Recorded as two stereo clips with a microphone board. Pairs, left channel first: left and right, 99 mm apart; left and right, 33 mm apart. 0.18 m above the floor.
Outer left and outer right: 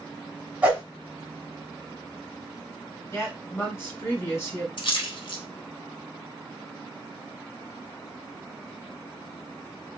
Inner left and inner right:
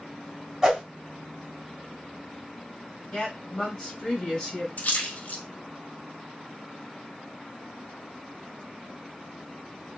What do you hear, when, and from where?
0.6 s a whoosh: 15° right (ahead or behind), 1.3 m
3.1 s a woman speaking: 25° left (ahead or behind), 1.7 m
4.8 s a splash: 55° left (ahead or behind), 0.7 m